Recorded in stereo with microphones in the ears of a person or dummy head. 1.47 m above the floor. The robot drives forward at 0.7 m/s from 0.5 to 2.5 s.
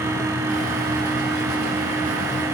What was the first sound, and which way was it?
Only background noise.